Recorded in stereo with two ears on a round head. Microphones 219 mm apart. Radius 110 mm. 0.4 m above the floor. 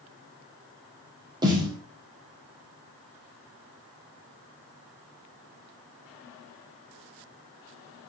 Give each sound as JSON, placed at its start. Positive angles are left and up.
{"t": 1.4, "sound": "a snare drum", "side_deg": -15, "distance_m": 2.5}